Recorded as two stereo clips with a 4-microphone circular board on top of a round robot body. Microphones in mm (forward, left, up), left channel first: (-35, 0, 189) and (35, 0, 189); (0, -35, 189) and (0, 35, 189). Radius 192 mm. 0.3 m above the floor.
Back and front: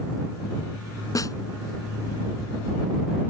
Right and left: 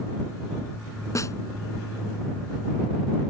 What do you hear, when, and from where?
1.1 s a snare drum: 140° right